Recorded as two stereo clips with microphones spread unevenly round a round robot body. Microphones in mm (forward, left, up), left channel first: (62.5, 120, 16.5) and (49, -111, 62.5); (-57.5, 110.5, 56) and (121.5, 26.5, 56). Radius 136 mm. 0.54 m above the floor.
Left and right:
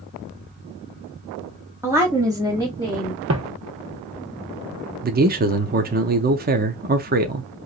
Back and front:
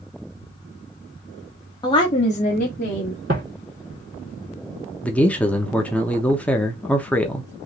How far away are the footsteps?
About 1.0 m.